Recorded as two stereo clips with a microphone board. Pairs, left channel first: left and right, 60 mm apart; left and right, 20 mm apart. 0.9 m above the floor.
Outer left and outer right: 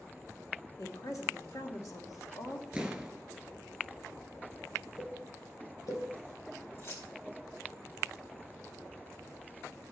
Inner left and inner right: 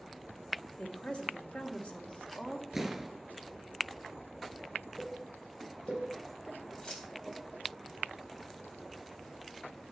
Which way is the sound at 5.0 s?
85° left.